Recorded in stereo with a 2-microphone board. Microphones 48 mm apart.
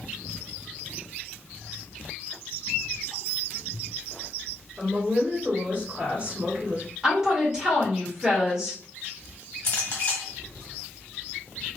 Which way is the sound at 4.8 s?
30° right (ahead or behind).